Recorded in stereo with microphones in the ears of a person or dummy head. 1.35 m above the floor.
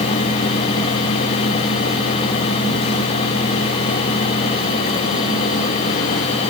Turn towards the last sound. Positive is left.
No sound to turn to.